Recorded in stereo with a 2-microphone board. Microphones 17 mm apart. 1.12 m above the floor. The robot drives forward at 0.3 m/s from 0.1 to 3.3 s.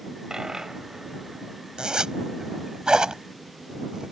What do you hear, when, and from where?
0.3 s a dropped coin: 45° right (ahead or behind); by 2.8 s 40° right (ahead or behind)
1.8 s a zipper: 65° right (ahead or behind); by 4.1 s 55° right (ahead or behind)